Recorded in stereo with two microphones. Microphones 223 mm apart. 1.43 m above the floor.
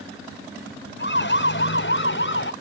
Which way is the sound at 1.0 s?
55° left (ahead or behind).